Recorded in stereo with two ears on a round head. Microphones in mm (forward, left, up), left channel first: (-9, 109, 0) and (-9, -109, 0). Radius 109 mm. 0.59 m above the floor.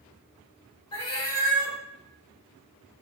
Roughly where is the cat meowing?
Centre.